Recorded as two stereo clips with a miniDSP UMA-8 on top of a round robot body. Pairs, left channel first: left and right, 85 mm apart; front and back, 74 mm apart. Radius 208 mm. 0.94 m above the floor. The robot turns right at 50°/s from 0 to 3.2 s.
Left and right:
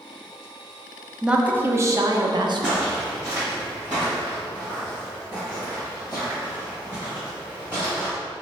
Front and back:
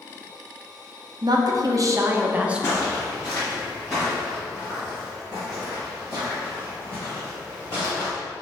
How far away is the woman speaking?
About 0.7 m.